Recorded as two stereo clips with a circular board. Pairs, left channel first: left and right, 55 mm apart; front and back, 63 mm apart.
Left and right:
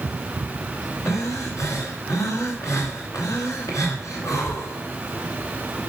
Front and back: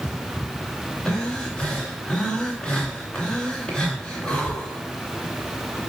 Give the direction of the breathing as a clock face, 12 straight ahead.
9 o'clock.